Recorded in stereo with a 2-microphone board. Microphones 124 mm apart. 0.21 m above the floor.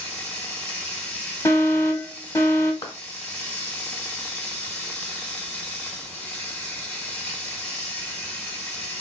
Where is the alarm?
25° left (ahead or behind), 0.9 m.